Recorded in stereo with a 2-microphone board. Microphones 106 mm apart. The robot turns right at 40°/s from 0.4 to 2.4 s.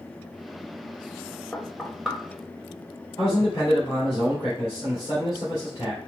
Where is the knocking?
15° left (ahead or behind), 1.0 m; by 2.2 s 5° right (ahead or behind), 1.0 m.